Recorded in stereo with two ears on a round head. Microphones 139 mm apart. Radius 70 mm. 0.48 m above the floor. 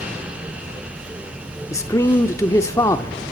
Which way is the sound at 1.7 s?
20° left (ahead or behind).